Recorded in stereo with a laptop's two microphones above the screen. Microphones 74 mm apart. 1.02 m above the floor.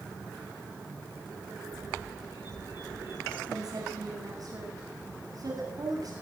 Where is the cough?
I don't hear a cough.